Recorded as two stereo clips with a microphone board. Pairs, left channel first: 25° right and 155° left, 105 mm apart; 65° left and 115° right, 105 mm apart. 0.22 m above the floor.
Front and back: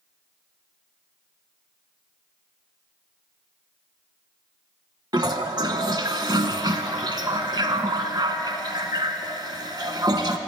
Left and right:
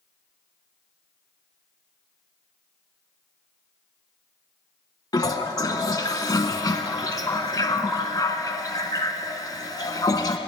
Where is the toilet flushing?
115° left, 0.7 m.